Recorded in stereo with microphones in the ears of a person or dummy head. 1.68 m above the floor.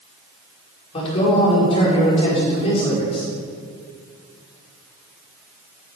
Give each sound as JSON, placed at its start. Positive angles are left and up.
{"t": 0.9, "sound": "a man speaking", "side_deg": 35, "distance_m": 5.0}